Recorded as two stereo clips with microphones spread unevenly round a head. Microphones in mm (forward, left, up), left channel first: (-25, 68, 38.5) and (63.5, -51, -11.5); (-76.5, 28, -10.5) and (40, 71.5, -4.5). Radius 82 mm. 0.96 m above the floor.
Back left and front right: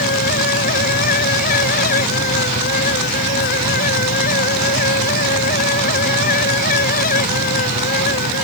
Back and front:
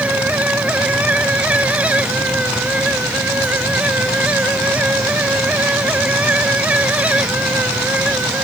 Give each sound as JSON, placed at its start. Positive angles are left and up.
{"t": 0.0, "sound": "a fan", "azimuth_deg": 100}